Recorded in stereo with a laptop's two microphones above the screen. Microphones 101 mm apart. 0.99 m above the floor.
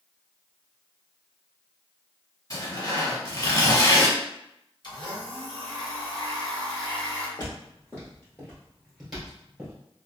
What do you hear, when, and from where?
2.5 s tearing paper: 40° left (ahead or behind), 1.6 m
4.8 s a blender: 50° left (ahead or behind), 0.8 m
7.4 s footsteps: 40° left (ahead or behind), 1.5 m; by 9.8 s 15° right (ahead or behind), 1.5 m